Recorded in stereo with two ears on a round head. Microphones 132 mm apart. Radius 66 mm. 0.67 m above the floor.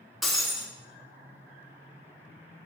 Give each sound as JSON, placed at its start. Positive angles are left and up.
{"t": 0.2, "sound": "breaking glass", "side_deg": 0, "distance_m": 0.8}